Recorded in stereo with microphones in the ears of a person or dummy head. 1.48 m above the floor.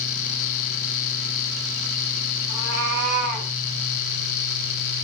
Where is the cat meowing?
55° right (ahead or behind), 7 m; by 3.5 s 50° right (ahead or behind), 7.5 m.